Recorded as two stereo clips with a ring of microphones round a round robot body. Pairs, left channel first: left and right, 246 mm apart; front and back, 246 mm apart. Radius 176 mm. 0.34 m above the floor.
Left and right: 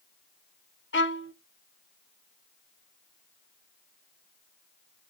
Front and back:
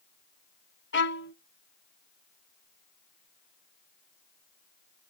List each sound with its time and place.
0.9 s a violin: 45° left, 1.1 m